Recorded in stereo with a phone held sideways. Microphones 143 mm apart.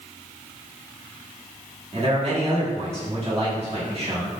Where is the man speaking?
45° right (ahead or behind), 1.8 m.